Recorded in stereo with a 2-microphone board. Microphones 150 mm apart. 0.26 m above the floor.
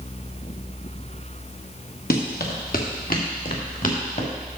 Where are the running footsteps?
85° left, 2.5 m; by 4.3 s 60° left (ahead or behind), 3 m.